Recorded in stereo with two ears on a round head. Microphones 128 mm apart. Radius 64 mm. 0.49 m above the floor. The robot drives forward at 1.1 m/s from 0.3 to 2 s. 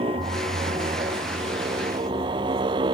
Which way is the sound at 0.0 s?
35° right (ahead or behind).